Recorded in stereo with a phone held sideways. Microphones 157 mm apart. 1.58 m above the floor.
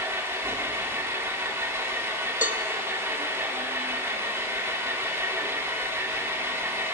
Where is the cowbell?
55° left (ahead or behind), 0.8 m.